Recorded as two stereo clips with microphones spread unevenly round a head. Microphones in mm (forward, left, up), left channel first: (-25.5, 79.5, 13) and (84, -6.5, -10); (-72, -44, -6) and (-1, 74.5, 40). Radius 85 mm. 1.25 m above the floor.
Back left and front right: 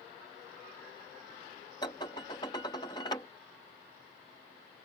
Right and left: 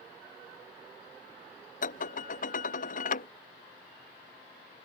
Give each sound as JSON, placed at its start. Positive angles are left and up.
{"t": 1.8, "sound": "dishes clattering", "azimuth_deg": -150}